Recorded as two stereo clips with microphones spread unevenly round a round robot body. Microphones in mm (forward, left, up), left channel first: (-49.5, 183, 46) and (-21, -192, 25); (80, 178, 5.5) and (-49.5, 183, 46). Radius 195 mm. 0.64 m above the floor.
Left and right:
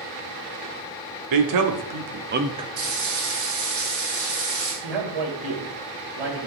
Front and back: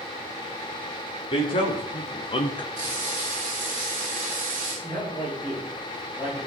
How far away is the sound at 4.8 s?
About 3.5 m.